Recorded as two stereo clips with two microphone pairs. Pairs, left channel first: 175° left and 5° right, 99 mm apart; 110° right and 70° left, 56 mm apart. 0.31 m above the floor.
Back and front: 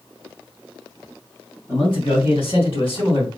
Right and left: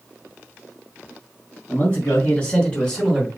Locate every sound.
1.7 s a man speaking: 155° right, 3 m; by 3.3 s 165° left, 3 m